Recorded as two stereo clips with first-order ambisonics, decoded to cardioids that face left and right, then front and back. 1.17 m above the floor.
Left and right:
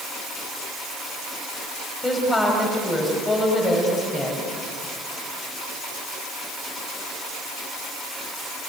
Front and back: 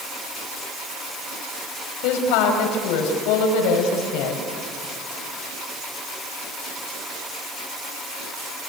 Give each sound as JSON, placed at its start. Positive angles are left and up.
{"t": 2.0, "sound": "a woman speaking", "azimuth_deg": 10, "distance_m": 5.5}